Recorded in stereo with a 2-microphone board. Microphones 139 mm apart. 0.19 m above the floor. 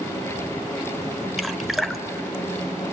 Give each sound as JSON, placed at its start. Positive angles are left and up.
{"t": 1.4, "sound": "dripping", "side_deg": 0, "distance_m": 0.9}